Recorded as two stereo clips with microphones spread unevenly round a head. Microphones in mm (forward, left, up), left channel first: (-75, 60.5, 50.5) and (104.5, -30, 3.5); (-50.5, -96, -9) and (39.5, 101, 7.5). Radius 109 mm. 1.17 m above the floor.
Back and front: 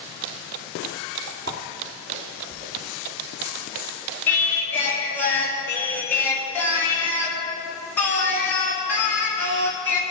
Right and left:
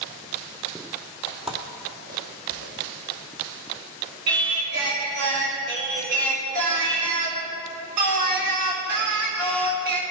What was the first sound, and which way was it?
Footsteps, 45° right.